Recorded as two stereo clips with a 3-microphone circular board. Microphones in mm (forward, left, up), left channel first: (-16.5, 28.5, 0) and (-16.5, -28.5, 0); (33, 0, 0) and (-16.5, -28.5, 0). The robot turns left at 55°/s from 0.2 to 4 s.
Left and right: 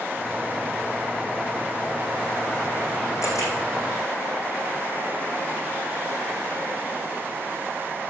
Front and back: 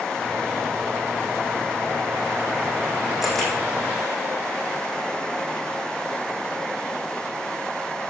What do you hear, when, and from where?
3.2 s a camera shutter: 125° left, 4 m; by 3.5 s 105° left, 4 m